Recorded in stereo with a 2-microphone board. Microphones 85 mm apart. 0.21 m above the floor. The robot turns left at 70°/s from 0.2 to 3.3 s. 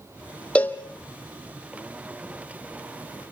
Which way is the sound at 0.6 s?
15° left (ahead or behind).